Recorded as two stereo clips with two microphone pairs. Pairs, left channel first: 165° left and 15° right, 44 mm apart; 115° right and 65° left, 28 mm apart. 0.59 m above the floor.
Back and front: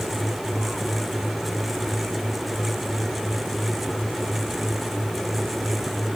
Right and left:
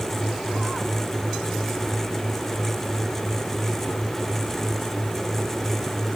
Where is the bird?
No bird in this recording.